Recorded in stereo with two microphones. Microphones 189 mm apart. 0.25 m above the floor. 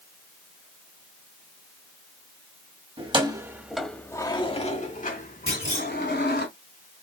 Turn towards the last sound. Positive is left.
turn(degrees=35)  # may be behind; listen again after turning